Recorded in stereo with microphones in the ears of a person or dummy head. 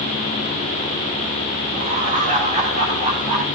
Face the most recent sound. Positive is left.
turn(degrees=-40)  # may be behind; listen again after turning